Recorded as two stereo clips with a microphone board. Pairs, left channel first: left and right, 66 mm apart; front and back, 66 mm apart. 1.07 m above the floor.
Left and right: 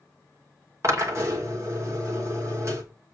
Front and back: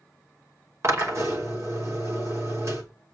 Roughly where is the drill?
Behind right.